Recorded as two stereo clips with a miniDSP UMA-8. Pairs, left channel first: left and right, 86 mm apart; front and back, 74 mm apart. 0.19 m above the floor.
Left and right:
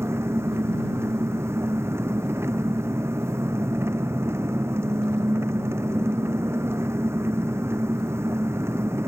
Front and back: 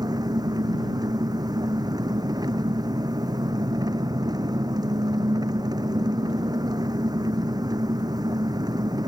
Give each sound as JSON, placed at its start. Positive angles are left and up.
{"t": 0.0, "sound": "an engine running", "azimuth_deg": -150}